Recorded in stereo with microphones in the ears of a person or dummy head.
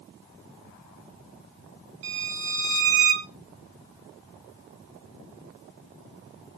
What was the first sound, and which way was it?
A violin, 75° right (ahead or behind).